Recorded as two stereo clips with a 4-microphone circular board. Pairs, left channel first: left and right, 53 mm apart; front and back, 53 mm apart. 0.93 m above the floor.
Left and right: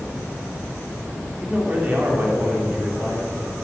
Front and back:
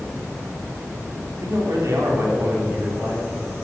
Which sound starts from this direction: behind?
A man speaking, at 1.4 s.